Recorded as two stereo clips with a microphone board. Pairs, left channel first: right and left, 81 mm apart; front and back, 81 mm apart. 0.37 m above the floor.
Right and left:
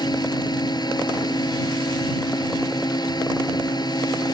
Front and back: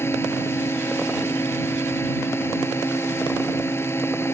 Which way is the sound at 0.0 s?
60° right.